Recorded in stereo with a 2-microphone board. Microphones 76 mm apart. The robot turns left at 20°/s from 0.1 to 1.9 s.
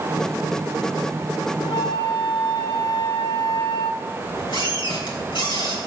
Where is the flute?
85° left, 0.8 m; by 4.0 s 80° left, 0.8 m.